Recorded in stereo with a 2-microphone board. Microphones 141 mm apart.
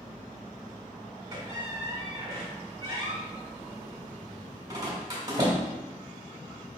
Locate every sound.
1.3 s a squeak: 25° right (ahead or behind), 1.3 m